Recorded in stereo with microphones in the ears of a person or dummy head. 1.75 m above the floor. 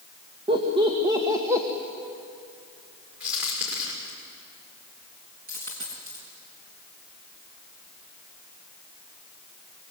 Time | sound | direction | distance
0.5 | laughter | 30° right (ahead or behind) | 2.5 m
3.2 | a crack | 10° right (ahead or behind) | 6.5 m
5.5 | a dropped coin | 40° right (ahead or behind) | 5.5 m